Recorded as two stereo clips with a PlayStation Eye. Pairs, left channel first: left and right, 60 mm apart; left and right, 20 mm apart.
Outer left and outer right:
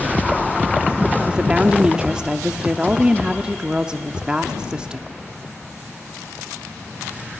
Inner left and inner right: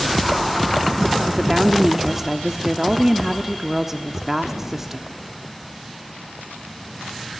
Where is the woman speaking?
15° right (ahead or behind), 0.7 m.